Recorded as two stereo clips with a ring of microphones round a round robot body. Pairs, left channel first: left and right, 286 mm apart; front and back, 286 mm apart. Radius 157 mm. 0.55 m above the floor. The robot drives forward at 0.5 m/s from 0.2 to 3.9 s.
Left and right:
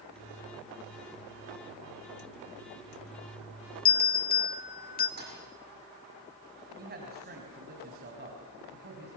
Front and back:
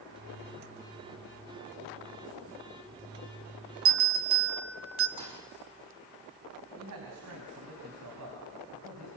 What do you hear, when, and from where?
3.9 s a bell: 145° left, 2.5 m
5.2 s a thud: 145° right, 6 m
6.8 s a man speaking: 145° right, 4.5 m